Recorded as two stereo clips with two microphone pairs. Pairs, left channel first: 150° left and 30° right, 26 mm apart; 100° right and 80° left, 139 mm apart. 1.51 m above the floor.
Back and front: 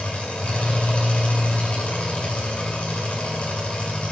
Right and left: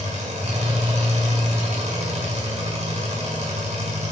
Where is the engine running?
120° left, 5.5 m.